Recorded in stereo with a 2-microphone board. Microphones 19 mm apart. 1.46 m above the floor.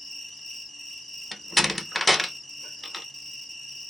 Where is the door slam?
Centre (ahead or behind), 0.6 m.